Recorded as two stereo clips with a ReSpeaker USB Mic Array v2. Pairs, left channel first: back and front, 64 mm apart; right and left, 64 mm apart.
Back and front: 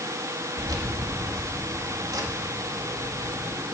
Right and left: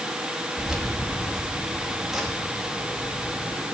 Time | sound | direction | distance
0.6 | keys jangling | 10° left | 2 m